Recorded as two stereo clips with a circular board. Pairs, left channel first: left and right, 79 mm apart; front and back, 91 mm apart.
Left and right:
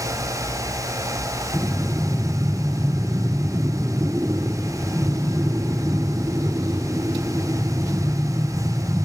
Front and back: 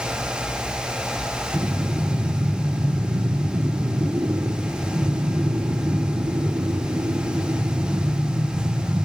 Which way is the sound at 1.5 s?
150° right.